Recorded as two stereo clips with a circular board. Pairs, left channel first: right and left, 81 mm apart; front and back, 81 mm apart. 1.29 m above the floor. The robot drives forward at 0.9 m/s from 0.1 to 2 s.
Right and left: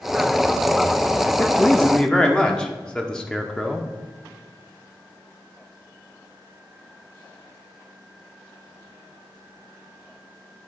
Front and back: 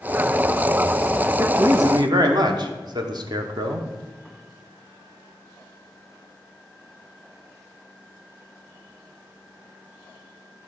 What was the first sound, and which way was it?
A man speaking, 145° right.